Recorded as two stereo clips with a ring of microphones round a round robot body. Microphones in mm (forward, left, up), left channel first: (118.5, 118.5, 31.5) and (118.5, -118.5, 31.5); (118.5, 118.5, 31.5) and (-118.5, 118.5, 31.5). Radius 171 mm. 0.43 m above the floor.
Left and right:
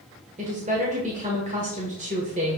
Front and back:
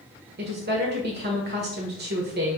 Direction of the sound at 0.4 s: 145° right.